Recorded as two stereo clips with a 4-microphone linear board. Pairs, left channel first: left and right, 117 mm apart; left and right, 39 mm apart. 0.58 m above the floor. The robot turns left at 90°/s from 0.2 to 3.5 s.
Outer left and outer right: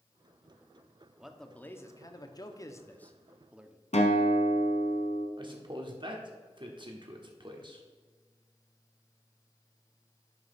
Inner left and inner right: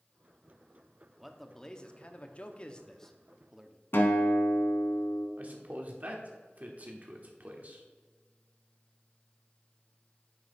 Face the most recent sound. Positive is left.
turn(degrees=-45)  # may be behind; listen again after turning